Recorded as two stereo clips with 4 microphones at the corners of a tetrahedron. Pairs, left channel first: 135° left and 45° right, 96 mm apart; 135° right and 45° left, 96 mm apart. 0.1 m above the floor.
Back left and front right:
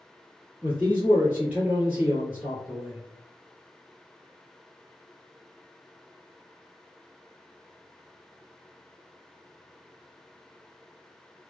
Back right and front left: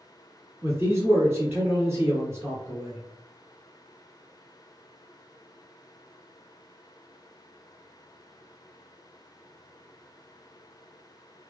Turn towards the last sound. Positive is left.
turn(degrees=10)